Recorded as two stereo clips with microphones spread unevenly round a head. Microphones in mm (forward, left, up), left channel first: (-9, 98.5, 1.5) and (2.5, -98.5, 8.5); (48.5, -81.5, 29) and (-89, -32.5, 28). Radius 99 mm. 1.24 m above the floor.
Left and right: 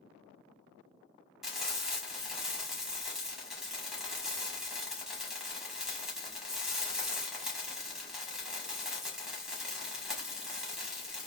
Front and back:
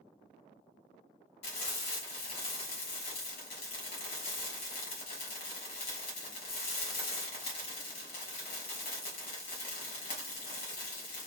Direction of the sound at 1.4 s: Straight ahead.